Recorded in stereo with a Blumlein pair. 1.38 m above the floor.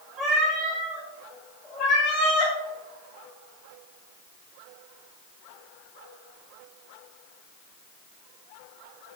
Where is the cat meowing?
10° right, 1.8 m; by 2.5 s 40° left, 1.7 m.